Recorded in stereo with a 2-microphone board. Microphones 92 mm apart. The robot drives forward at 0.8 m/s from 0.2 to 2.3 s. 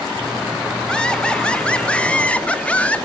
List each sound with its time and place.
0.9 s laughter: 10° left (ahead or behind), 2.5 m; by 3.1 s 15° left (ahead or behind), 1.5 m